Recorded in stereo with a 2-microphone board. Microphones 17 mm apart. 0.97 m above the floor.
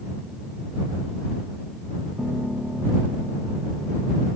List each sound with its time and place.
2.2 s a piano: 35° right (ahead or behind)